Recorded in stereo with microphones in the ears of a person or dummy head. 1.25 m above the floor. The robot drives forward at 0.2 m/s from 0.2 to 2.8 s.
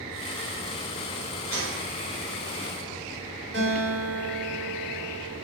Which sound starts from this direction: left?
A gunshot, at 1.5 s.